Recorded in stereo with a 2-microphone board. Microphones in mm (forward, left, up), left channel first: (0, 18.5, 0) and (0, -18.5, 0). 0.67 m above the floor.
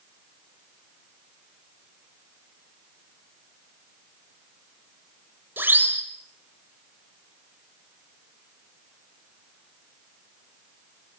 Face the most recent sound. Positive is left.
turn(degrees=-70)  # may be behind; listen again after turning